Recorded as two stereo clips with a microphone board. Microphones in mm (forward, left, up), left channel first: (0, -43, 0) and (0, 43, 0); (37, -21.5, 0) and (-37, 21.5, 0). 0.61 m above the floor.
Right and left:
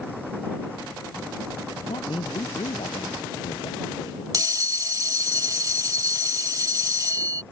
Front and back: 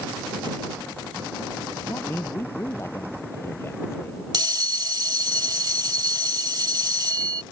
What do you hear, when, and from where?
1.9 s a man speaking: 90° right
4.3 s a bell: 125° left